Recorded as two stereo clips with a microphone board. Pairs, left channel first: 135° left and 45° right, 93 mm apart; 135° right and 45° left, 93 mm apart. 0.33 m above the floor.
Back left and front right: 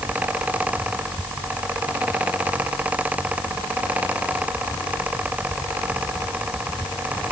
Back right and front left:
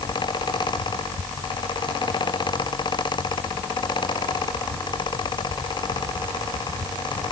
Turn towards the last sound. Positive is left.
No sound to turn to.